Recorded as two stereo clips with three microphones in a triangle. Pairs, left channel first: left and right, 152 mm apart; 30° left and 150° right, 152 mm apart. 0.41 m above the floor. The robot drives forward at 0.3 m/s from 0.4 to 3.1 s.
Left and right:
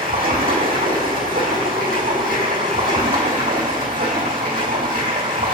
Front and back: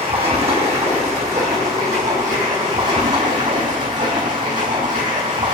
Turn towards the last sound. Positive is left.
turn(degrees=-120)